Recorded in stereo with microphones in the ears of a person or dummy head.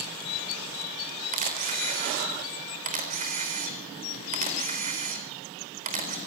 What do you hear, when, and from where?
1.3 s a camera shutter: 45° right (ahead or behind), 4 m